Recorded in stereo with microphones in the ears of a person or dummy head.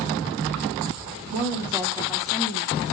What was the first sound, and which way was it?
A woman speaking, 35° right (ahead or behind).